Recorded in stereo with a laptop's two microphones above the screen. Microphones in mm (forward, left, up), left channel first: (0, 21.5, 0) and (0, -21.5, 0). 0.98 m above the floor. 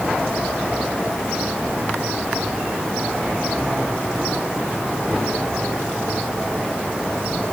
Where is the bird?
I don't hear a bird.